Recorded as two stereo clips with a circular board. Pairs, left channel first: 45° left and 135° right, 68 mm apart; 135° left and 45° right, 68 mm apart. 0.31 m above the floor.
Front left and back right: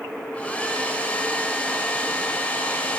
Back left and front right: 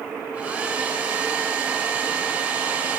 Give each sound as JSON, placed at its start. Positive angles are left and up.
{"t": 0.3, "sound": "a hair dryer", "azimuth_deg": 0, "distance_m": 0.5}